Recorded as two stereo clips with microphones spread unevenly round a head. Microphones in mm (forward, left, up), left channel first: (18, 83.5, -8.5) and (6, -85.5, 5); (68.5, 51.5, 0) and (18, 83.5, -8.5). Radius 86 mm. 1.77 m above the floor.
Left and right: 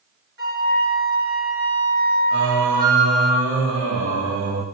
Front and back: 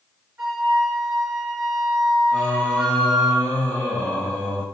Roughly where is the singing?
Right.